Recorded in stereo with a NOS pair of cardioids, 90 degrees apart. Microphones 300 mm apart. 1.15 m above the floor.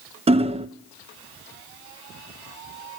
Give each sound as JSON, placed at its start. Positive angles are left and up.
{"t": 0.3, "sound": "hammering", "azimuth_deg": -20, "distance_m": 0.5}